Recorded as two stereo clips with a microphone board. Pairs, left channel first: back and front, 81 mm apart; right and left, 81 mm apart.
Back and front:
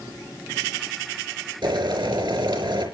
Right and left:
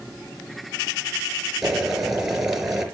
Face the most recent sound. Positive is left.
turn(degrees=5)